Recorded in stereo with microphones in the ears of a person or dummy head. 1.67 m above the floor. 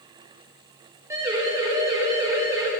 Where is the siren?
15° right (ahead or behind), 9.5 m.